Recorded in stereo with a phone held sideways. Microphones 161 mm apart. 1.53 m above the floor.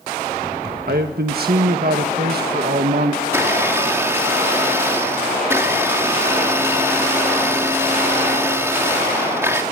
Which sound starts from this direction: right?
A man speaking, at 0.9 s.